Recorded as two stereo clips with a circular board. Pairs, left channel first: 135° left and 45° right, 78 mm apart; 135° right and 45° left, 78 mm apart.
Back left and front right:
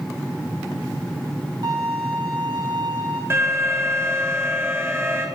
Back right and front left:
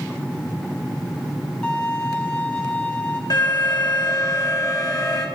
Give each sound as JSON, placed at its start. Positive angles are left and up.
{"t": 1.6, "sound": "a violin", "azimuth_deg": -60, "distance_m": 2.0}
{"t": 3.3, "sound": "an alarm", "azimuth_deg": -105, "distance_m": 1.4}